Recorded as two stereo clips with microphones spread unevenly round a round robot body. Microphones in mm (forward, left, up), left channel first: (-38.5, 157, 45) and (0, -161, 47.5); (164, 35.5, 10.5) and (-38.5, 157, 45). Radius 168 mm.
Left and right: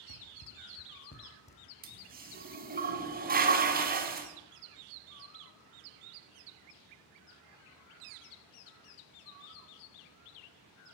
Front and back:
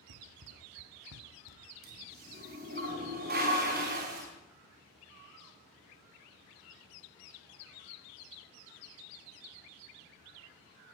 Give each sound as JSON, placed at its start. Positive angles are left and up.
{"t": 0.1, "sound": "running footsteps", "azimuth_deg": 130, "distance_m": 2.5}
{"t": 1.8, "sound": "a toilet flushing", "azimuth_deg": -145, "distance_m": 5.0}